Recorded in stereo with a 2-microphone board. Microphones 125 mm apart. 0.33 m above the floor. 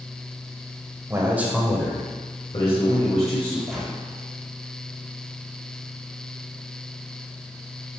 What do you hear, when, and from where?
1.1 s a man speaking: 25° right (ahead or behind), 1.4 m; by 3.6 s 60° left (ahead or behind), 2.5 m
3.7 s a gunshot: centre (ahead or behind), 2.0 m